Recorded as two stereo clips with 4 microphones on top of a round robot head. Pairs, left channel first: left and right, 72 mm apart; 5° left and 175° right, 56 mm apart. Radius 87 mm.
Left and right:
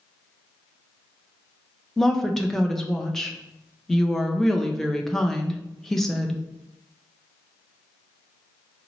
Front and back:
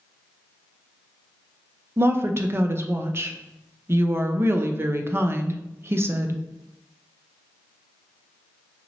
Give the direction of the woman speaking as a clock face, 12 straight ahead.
6 o'clock.